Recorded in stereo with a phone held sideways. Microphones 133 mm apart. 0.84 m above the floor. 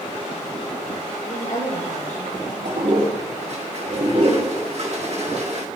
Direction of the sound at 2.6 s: 55° right (ahead or behind).